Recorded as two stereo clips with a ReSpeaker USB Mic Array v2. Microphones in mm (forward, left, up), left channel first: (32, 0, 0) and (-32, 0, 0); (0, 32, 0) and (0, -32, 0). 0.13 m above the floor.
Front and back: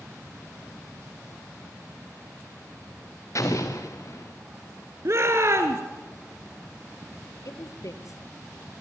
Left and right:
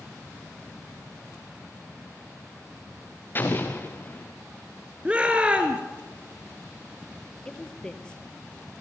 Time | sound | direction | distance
3.4 | an explosion | 35° left | 4 m
5.0 | a shout | 155° right | 1.8 m
7.5 | a woman speaking | 15° left | 2 m